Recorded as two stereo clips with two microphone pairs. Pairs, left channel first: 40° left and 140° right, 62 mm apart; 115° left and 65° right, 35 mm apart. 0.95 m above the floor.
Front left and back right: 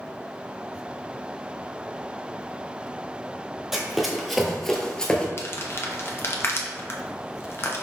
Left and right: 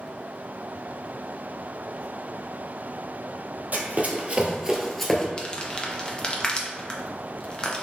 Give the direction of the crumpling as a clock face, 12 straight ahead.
10 o'clock.